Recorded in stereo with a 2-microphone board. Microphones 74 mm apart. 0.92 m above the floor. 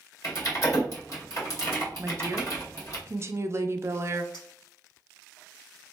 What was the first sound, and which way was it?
Typing on a keyboard, 50° left (ahead or behind).